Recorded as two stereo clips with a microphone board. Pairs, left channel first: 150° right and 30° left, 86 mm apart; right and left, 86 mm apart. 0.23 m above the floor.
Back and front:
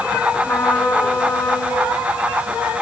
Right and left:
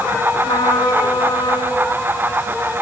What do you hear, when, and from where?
0.4 s a trumpet: 90° right, 2.5 m